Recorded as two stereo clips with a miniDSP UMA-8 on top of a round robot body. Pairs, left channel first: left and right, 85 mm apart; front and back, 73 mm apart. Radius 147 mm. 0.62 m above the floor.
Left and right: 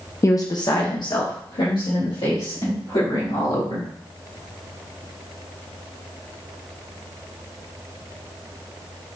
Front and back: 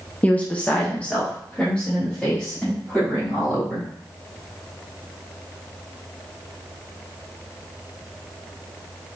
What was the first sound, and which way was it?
A woman speaking, 60° left.